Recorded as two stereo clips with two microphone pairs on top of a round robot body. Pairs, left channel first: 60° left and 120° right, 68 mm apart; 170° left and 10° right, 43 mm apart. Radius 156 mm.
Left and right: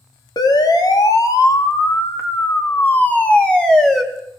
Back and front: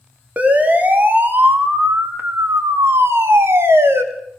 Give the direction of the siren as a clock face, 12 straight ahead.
10 o'clock.